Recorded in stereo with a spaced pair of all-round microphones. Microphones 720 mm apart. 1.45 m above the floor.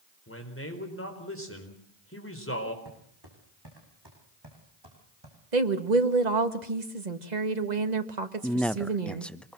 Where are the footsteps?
30° right (ahead or behind), 6.5 m; by 5.4 s 35° right (ahead or behind), 5.5 m.